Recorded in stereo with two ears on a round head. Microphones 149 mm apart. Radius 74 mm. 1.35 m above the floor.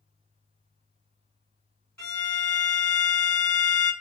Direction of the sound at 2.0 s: 10° left (ahead or behind).